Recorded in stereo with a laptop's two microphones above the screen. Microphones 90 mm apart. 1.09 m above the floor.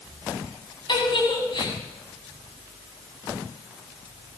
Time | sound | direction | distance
0.9 | a giggle | 55° left (ahead or behind) | 8.5 m